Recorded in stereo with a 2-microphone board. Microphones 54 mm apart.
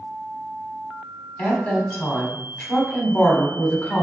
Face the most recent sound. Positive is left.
turn(degrees=30)  # may be behind; listen again after turning